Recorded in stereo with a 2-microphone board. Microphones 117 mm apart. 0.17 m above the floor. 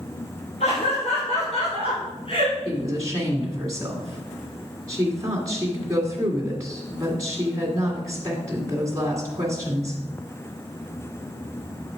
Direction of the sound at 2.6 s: 30° right (ahead or behind).